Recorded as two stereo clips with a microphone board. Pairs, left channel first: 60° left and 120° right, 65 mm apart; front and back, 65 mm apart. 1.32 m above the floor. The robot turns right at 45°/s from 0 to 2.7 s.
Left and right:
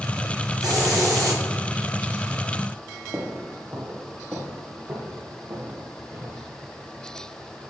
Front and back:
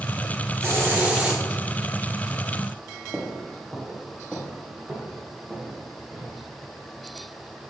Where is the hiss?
135° right, 3.5 m; by 1.4 s 100° right, 3.5 m.